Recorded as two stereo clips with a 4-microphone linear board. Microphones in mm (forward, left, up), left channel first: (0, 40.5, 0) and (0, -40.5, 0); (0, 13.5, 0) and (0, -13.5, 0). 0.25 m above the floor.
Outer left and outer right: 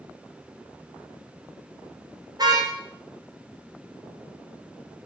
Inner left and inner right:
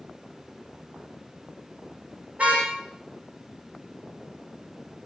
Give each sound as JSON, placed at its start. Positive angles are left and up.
{"t": 2.4, "sound": "a car horn", "side_deg": -50, "distance_m": 7.5}